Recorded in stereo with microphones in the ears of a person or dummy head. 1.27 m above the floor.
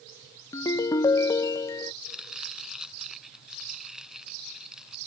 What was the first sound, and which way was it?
A ringtone, 20° left (ahead or behind).